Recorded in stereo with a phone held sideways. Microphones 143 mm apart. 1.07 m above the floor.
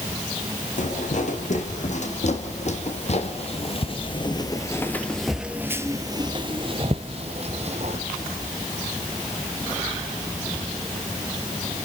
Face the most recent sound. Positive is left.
turn(degrees=-50)  # may be behind; listen again after turning